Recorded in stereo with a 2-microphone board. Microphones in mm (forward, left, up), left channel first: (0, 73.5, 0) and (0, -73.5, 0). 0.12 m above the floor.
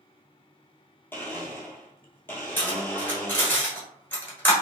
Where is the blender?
15° left (ahead or behind), 0.9 m.